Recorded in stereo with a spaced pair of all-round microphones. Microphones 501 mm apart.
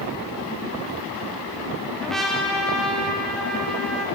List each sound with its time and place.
2.0 s a trumpet: centre (ahead or behind), 1.1 m